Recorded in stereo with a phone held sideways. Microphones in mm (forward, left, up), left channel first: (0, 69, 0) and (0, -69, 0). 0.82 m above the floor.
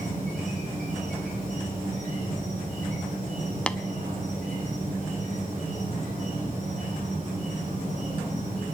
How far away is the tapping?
About 0.6 m.